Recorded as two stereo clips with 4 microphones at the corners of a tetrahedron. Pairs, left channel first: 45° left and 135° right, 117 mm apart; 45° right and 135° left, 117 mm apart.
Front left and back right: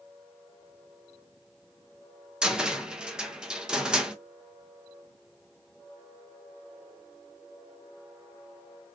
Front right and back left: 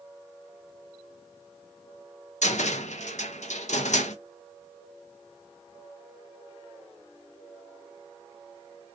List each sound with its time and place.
2.4 s a cupboard door: 50° right, 0.5 m